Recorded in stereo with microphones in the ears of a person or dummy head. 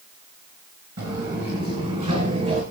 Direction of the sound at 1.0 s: 55° right (ahead or behind).